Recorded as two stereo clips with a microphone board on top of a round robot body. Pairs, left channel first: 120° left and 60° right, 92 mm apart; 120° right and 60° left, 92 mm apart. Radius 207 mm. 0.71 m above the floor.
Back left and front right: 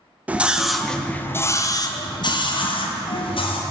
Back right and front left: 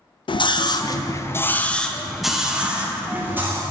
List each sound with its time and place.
0.3 s a scream: 130° right, 0.9 m; by 3.6 s 125° left, 1.5 m